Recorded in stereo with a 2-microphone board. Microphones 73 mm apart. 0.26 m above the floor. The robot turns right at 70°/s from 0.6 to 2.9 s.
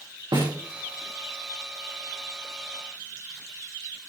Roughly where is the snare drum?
Right.